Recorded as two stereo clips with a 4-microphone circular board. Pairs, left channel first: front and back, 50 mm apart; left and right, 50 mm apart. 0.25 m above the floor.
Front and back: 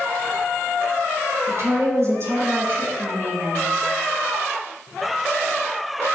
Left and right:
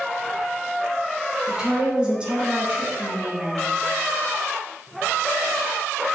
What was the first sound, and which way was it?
A woman speaking, 165° right.